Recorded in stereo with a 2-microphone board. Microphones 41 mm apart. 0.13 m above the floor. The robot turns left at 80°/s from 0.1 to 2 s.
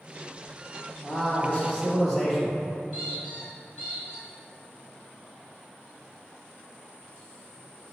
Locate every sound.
1.0 s a man speaking: 25° left (ahead or behind), 1.2 m; by 2.6 s 10° left (ahead or behind), 1.2 m
2.9 s a squeak: centre (ahead or behind), 1.9 m